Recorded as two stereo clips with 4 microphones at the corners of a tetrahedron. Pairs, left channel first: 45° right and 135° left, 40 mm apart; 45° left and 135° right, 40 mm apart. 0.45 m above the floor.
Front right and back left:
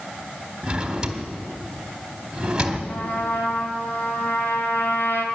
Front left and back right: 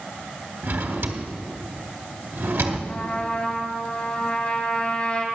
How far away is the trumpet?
About 1.7 m.